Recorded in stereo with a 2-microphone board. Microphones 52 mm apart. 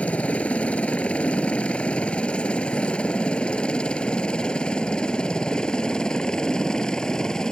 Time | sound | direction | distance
0.0 | a helicopter | 25° left (ahead or behind) | ?